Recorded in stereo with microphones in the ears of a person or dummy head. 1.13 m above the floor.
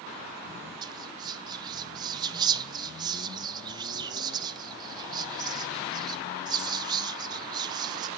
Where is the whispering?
20° right (ahead or behind), 0.7 m.